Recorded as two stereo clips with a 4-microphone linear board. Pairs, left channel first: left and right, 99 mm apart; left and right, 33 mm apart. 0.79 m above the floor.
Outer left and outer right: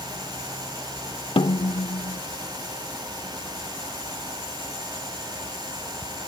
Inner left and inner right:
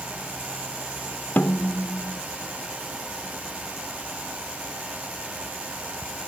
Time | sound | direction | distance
1.4 | a snare drum | 70° left (ahead or behind) | ?